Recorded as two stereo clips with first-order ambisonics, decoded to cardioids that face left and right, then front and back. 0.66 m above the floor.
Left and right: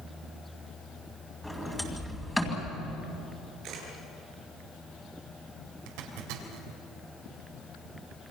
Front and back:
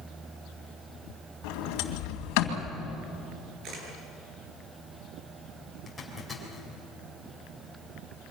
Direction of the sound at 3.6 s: 135° right.